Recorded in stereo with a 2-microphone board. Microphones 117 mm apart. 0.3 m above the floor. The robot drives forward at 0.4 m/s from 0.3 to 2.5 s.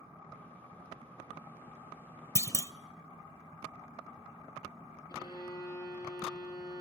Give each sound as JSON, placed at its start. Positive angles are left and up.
{"t": 2.4, "sound": "a clunk", "side_deg": 25, "distance_m": 0.5}
{"t": 5.1, "sound": "a violin", "side_deg": 30, "distance_m": 7.5}